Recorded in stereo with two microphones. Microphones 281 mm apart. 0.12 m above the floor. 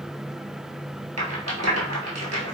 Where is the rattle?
65° right (ahead or behind), 1.2 m.